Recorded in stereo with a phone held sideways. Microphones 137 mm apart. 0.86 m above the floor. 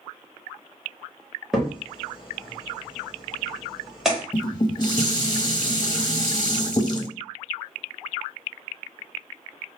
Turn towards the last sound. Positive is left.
turn(degrees=35)  # may be behind; listen again after turning